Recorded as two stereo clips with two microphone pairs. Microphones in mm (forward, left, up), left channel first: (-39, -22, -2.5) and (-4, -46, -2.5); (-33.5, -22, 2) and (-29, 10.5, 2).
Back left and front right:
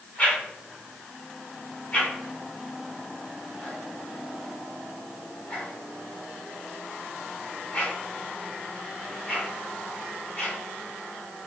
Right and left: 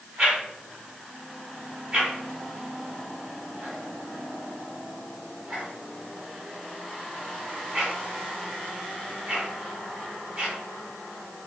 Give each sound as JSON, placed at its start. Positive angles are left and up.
{"t": 0.2, "sound": "a whoosh", "azimuth_deg": 115, "distance_m": 1.6}